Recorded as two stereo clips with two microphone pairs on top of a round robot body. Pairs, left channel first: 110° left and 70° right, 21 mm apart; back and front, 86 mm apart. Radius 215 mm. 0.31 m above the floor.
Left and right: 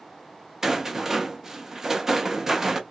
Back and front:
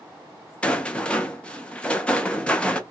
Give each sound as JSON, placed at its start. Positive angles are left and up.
{"t": 0.6, "sound": "a rattle", "azimuth_deg": -120, "distance_m": 0.9}